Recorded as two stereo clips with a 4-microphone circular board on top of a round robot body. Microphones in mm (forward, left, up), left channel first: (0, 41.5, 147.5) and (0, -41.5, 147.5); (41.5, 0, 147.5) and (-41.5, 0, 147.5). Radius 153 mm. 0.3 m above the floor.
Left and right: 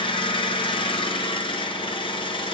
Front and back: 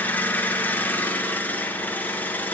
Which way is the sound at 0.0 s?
70° left.